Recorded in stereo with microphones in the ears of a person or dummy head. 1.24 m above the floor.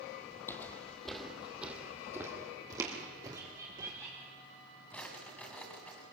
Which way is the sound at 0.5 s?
15° left (ahead or behind).